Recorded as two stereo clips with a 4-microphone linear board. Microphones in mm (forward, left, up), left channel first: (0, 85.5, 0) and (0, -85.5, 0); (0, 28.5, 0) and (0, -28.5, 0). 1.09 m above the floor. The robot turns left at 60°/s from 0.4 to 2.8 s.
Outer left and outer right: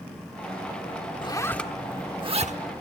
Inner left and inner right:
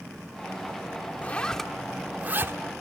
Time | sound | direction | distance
1.2 | a zipper | 25° left (ahead or behind) | 1.1 m